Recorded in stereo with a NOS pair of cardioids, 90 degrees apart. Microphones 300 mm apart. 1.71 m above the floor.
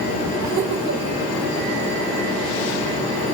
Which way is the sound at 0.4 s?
65° right.